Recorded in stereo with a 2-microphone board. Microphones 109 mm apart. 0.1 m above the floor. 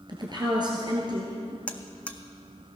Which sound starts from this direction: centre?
A buzzer, at 1.7 s.